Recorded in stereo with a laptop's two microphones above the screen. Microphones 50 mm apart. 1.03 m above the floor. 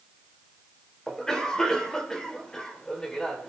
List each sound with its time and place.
1.1 s a cough: 10° left (ahead or behind), 3 m